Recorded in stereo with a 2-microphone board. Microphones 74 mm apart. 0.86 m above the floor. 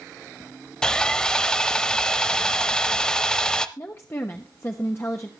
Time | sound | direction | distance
0.8 | sawing | 10° left (ahead or behind) | 0.7 m
3.8 | a woman speaking | 35° left (ahead or behind) | 1.0 m